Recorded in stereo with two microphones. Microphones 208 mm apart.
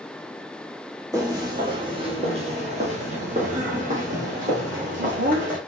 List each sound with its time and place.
1.1 s footsteps: 15° right (ahead or behind), 1.5 m; by 5.6 s 40° right (ahead or behind), 2.5 m